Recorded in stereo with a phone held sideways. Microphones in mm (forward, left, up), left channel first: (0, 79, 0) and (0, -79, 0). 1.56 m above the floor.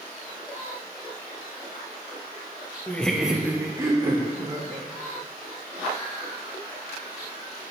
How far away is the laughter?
About 0.7 m.